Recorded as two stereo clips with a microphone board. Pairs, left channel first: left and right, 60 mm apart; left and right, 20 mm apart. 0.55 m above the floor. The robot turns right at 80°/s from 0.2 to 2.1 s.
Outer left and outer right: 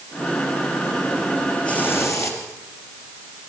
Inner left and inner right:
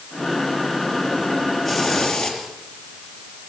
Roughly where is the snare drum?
I don't hear a snare drum.